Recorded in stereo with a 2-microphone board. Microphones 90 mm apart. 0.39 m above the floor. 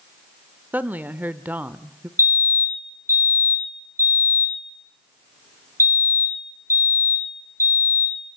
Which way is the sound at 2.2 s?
30° right (ahead or behind).